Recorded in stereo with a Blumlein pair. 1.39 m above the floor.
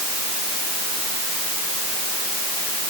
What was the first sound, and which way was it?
Only background noise.